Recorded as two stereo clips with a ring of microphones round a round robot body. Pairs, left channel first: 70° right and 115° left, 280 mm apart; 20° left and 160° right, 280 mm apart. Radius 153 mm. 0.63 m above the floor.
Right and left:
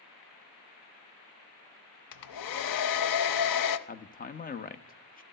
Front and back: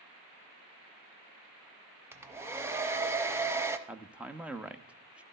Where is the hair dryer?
75° right, 0.7 m.